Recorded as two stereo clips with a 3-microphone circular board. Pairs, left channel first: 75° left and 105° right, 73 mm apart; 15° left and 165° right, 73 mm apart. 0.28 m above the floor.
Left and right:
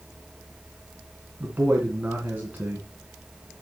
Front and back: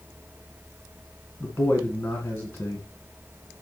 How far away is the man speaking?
About 2.5 m.